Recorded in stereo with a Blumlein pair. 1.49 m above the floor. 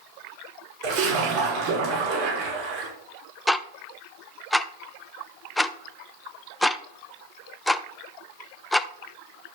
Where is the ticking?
5° left, 0.5 m.